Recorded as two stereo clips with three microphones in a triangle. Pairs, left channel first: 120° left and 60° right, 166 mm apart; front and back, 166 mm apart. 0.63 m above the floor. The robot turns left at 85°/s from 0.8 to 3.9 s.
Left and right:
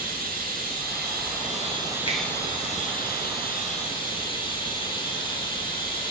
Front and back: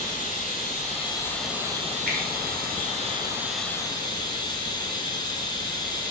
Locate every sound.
0.0 s running water: 35° right, 1.2 m; by 6.1 s 60° left, 1.2 m
2.1 s a finger snap: 175° left, 1.6 m; by 2.2 s 165° left, 1.6 m